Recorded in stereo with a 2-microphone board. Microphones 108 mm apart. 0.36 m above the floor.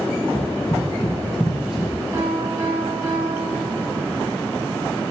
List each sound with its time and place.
0.3 s running footsteps: 60° left (ahead or behind), 1.0 m; by 1.9 s 5° right (ahead or behind), 2.5 m
2.1 s a piano: 40° right (ahead or behind), 2.5 m